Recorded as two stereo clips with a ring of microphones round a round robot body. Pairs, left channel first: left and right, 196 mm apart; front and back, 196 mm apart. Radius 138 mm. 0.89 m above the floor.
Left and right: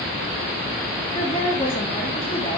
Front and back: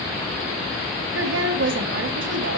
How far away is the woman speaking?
About 1.3 m.